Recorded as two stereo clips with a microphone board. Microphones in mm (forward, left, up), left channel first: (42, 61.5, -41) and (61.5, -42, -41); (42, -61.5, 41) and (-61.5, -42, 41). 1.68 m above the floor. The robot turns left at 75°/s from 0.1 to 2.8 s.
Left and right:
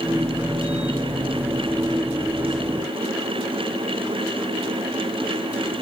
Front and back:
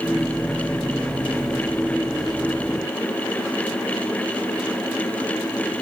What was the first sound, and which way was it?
Only background noise.